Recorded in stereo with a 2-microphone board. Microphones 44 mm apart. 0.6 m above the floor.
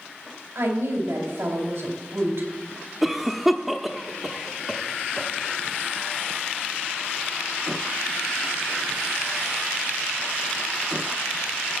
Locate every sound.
0.6 s a woman speaking: 75° right (ahead or behind), 4 m
3.0 s a cough: 5° right (ahead or behind), 0.7 m